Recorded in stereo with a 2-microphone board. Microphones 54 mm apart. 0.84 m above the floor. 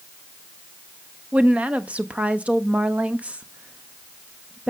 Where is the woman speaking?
25° right (ahead or behind), 0.7 m.